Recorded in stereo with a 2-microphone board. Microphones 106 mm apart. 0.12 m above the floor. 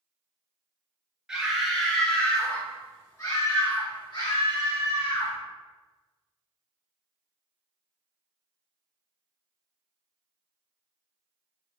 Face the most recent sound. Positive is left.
turn(degrees=60)  # may be behind; listen again after turning